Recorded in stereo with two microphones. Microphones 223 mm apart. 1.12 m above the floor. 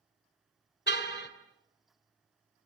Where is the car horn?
45° left (ahead or behind), 2 m.